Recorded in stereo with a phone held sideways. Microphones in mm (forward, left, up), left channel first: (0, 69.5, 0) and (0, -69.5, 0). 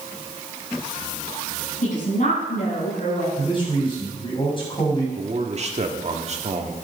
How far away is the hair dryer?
I don't hear a hair dryer.